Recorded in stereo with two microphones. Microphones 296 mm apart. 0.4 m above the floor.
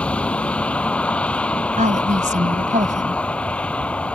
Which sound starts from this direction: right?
A woman speaking, at 1.8 s.